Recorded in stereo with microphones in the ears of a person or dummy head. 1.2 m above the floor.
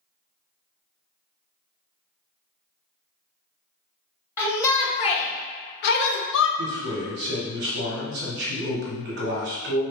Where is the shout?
15° left (ahead or behind), 1.1 m; by 6.5 s 70° left (ahead or behind), 1.0 m.